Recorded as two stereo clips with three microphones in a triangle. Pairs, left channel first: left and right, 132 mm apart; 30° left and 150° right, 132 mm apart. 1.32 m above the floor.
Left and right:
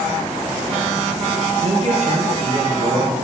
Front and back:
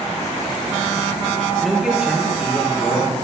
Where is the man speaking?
60° right, 0.6 m; by 3.1 s 70° right, 2.5 m.